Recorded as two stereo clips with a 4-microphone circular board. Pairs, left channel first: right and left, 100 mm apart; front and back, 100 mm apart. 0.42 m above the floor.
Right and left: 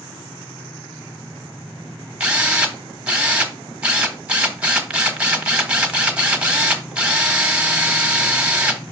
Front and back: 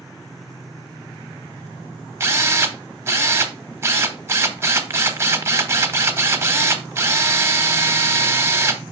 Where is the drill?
155° left, 1.2 m.